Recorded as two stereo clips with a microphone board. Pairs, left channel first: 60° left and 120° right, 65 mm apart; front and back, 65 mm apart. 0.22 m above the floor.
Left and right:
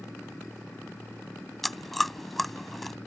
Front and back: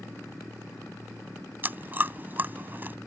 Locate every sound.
1.6 s chewing: 145° left